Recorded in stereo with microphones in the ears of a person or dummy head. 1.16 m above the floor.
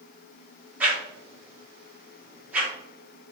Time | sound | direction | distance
0.8 | a whoosh | 10° right (ahead or behind) | 1.2 m